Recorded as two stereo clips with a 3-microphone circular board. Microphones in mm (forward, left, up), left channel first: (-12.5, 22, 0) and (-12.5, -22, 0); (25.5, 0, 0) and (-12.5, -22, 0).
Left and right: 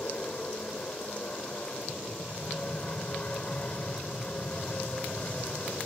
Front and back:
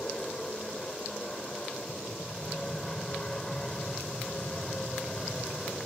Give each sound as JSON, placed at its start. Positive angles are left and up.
{"t": 0.0, "sound": "an aircraft", "azimuth_deg": 90}